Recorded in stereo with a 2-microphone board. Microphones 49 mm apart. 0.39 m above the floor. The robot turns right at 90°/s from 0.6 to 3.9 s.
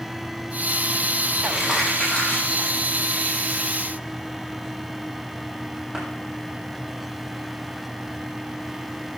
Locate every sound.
1.4 s crumpling: 25° right (ahead or behind), 6.5 m; by 6.0 s 15° right (ahead or behind), 6.5 m